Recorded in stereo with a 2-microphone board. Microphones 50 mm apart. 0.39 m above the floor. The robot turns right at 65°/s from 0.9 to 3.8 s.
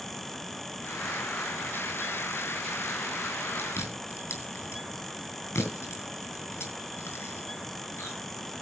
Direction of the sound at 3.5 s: 45° left (ahead or behind).